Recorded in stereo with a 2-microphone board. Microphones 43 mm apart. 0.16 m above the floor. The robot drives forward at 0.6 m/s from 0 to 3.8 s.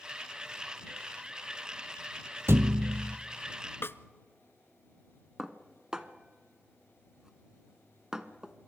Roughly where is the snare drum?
Left.